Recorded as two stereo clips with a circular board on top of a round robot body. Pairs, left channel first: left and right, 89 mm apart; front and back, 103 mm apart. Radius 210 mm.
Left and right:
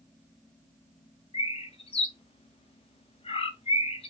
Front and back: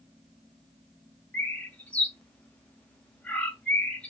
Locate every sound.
1.3 s a bird: 80° left, 0.6 m